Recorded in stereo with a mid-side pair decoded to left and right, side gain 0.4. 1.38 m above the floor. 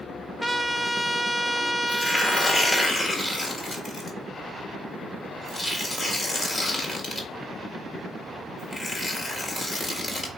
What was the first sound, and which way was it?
A trumpet, 10° left.